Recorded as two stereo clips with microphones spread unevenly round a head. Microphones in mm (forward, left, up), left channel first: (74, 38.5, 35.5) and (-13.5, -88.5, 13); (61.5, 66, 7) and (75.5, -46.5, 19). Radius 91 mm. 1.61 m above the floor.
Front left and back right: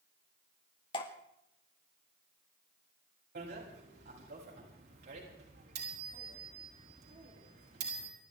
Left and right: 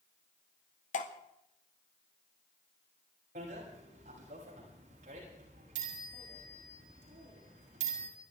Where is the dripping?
115° left, 1.8 m.